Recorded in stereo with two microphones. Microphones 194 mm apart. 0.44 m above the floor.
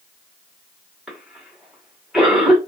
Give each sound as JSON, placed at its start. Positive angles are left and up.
{"t": 1.1, "sound": "a cough", "side_deg": -5, "distance_m": 1.6}